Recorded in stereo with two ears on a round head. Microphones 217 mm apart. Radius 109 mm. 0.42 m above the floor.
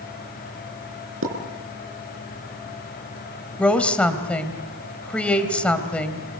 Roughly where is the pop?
Right.